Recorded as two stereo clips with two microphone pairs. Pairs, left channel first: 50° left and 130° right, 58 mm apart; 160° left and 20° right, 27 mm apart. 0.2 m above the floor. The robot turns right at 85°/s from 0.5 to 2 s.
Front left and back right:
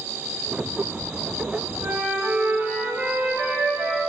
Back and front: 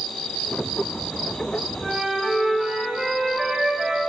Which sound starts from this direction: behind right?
A flute, at 1.8 s.